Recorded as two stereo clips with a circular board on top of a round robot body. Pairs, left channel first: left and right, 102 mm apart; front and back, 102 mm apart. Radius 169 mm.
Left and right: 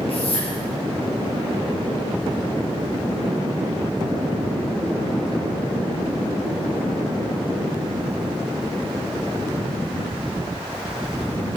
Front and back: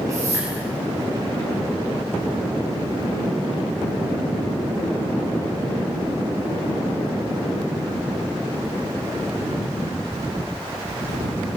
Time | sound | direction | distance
0.1 | a whoosh | 120° left | 8 m